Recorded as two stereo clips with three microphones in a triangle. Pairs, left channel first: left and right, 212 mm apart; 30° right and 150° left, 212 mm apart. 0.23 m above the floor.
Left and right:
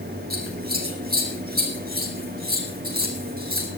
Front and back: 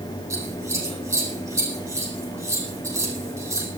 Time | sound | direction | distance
0.3 | scissors | 135° right | 5 m